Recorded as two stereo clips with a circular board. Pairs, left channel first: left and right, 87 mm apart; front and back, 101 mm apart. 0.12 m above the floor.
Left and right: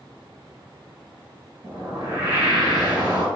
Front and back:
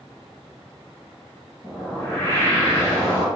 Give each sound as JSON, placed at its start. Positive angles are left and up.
{"t": 1.6, "sound": "a whoosh", "azimuth_deg": -55, "distance_m": 1.8}